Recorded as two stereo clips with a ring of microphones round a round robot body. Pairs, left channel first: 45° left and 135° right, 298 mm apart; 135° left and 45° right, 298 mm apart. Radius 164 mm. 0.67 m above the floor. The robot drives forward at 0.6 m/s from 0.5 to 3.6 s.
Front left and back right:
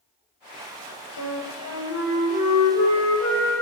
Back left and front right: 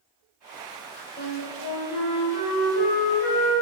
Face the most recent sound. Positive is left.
turn(degrees=140)